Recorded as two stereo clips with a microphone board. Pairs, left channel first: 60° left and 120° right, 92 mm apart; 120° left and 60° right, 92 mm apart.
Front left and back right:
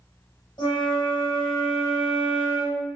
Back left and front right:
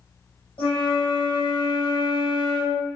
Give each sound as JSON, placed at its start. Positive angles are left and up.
{"t": 0.6, "sound": "a flute", "azimuth_deg": 95, "distance_m": 1.3}